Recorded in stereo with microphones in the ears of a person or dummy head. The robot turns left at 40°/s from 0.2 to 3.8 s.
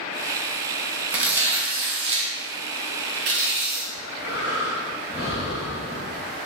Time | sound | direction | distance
1.1 | tearing paper | 10° right | 0.5 m
3.9 | breathing | 30° left (ahead or behind) | 1.0 m